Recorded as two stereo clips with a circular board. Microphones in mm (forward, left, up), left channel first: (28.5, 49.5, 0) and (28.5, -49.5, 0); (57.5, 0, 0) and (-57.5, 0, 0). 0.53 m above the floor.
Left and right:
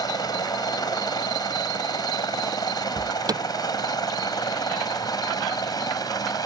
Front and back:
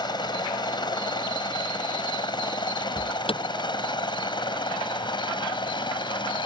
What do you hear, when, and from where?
0.0 s a helicopter: 45° left
3.0 s an alarm: 40° right